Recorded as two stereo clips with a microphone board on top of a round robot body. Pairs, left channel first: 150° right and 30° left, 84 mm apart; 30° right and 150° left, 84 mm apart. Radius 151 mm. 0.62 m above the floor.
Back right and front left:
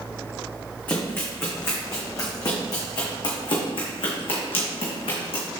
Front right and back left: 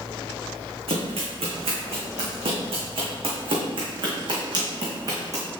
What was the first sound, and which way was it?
Running footsteps, 140° left.